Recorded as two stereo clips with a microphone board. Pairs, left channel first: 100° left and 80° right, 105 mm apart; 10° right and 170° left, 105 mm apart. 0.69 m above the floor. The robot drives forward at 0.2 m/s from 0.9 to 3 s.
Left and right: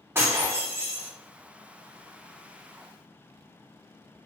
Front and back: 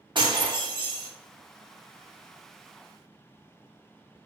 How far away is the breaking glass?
About 0.6 m.